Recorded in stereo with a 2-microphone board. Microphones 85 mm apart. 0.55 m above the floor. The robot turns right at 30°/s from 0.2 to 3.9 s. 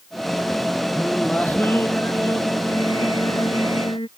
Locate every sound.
0.9 s singing: 5° left; by 4.1 s 95° left